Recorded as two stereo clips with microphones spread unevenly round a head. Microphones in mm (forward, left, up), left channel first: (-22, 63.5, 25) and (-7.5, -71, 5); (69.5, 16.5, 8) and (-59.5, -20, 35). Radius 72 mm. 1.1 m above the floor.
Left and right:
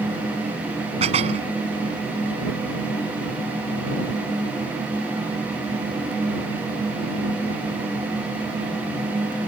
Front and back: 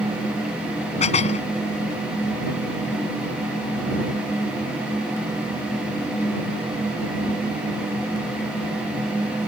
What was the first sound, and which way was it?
Dishes clattering, 30° right.